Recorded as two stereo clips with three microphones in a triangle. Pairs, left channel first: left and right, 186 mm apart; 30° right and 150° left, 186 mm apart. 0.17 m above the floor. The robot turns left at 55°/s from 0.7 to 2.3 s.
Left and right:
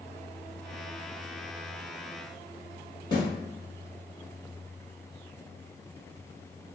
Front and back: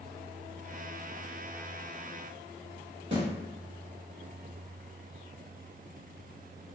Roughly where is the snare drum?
Behind left.